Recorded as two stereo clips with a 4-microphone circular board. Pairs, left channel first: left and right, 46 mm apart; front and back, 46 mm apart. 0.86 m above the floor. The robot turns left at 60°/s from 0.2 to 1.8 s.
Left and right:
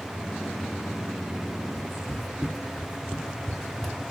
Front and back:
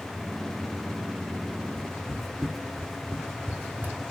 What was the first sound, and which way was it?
Footsteps, 70° left.